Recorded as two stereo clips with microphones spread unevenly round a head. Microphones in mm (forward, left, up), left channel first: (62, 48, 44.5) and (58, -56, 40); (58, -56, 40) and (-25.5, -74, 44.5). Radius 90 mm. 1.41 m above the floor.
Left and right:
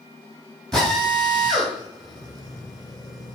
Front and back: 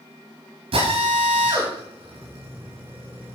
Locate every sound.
0.7 s a drill: 175° left, 4 m